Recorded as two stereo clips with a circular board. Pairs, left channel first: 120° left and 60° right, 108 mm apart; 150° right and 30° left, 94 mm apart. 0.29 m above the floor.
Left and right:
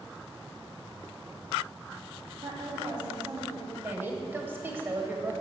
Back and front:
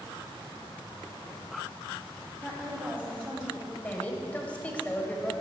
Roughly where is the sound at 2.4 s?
Ahead right.